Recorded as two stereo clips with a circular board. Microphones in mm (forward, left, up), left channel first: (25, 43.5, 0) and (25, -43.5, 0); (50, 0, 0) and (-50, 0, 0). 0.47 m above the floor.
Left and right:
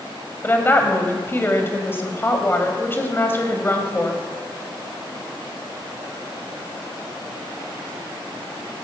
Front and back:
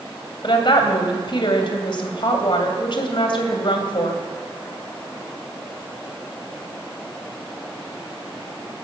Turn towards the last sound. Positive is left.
turn(degrees=30)